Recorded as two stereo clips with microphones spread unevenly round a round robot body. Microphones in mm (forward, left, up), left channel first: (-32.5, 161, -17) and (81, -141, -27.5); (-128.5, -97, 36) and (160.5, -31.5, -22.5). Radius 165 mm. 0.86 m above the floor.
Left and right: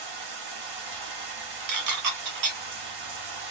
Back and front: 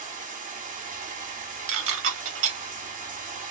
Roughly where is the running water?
Ahead right.